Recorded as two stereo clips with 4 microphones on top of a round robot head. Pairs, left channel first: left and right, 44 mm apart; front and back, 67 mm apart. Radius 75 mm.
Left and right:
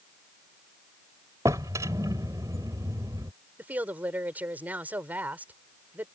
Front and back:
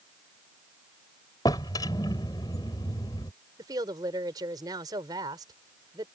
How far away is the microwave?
No microwave in this recording.